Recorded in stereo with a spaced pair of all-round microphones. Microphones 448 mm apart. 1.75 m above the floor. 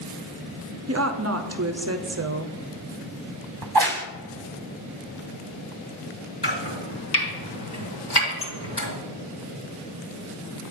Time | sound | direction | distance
0.9 | a woman speaking | 35° right (ahead or behind) | 0.5 m
3.6 | a crack | 55° right (ahead or behind) | 0.7 m
6.4 | chopping | 60° left (ahead or behind) | 3.5 m
8.4 | dishes clattering | 30° left (ahead or behind) | 1.7 m